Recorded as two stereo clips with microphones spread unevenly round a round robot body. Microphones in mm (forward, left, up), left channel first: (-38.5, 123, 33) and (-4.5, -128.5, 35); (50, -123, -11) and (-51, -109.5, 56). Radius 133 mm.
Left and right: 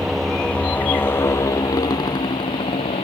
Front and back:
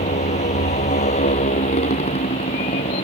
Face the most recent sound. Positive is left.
turn(degrees=25)